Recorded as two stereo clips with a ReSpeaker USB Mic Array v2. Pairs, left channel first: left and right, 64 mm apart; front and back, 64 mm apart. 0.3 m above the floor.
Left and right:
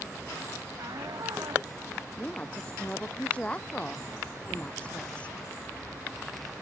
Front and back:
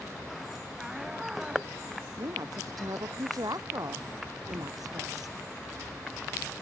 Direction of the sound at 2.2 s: 160° left.